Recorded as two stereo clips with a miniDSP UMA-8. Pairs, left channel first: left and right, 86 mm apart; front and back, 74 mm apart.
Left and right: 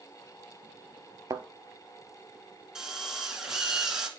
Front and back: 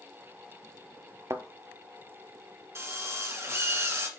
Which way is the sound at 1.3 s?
135° right.